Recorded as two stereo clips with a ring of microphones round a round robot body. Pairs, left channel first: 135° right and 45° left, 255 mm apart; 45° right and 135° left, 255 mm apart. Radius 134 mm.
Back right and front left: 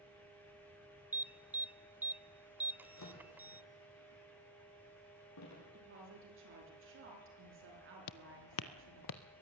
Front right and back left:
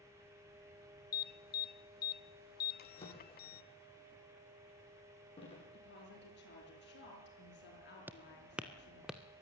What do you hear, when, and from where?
1.1 s an alarm: 35° right, 0.6 m
2.8 s a drawer: 115° right, 7.5 m
5.7 s a woman speaking: 5° left, 7 m
8.1 s footsteps: 145° right, 0.7 m; by 9.2 s 135° right, 1.2 m